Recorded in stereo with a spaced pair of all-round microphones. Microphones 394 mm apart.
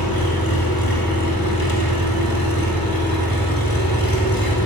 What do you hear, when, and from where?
0.0 s an engine running: 60° left (ahead or behind), 4.5 m